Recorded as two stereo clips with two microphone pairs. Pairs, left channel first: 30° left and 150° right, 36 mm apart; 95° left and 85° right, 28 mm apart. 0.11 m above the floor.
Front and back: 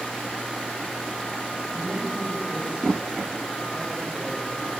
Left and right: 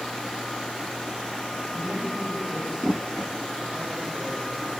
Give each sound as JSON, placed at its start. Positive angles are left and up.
{"t": 1.7, "sound": "a man speaking", "azimuth_deg": -95, "distance_m": 9.5}